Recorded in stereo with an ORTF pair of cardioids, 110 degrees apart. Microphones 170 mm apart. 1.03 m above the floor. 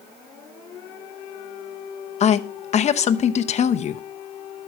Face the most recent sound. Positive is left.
turn(degrees=40)